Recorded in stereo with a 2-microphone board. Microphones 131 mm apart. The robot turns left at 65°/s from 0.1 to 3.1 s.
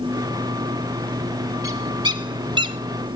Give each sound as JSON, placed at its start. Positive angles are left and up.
{"t": 1.6, "sound": "a bird", "side_deg": -25, "distance_m": 0.7}